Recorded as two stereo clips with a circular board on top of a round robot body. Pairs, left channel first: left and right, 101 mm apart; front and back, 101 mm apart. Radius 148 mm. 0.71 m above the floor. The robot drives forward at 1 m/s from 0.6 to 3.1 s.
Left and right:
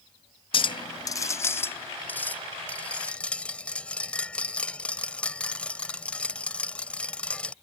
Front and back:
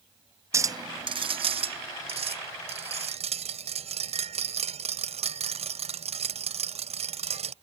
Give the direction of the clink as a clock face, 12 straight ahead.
8 o'clock.